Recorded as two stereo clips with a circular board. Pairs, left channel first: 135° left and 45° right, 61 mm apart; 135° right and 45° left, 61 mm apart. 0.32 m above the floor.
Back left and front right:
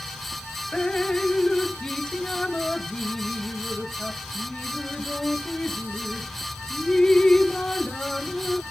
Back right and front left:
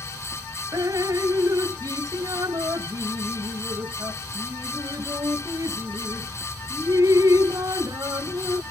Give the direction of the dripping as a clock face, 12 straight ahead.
10 o'clock.